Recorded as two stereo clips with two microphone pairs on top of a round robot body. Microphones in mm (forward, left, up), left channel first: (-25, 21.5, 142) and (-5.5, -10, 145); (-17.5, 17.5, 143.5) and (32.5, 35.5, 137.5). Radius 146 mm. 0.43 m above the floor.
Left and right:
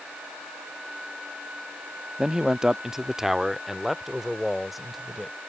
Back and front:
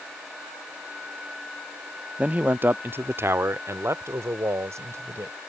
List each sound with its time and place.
2.2 s a man speaking: 5° left; by 5.4 s 30° left